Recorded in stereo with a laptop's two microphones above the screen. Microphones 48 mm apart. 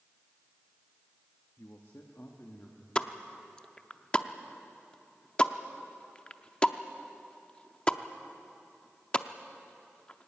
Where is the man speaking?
75° left (ahead or behind), 1.2 m; by 2.9 s 35° left (ahead or behind), 2 m.